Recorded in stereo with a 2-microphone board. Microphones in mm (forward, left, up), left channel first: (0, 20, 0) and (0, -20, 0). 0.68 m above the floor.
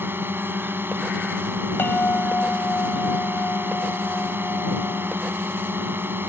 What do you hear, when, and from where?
0.0 s a drone: 65° right (ahead or behind)
1.8 s a bell: 65° left (ahead or behind)